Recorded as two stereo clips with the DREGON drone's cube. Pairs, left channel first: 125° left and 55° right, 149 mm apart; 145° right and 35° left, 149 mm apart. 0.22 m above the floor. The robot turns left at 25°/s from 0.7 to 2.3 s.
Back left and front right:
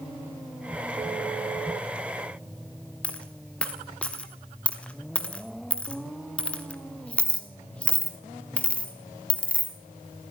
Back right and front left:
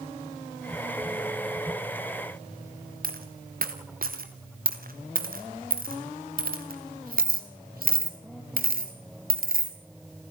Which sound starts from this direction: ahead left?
A dropped coin, at 3.0 s.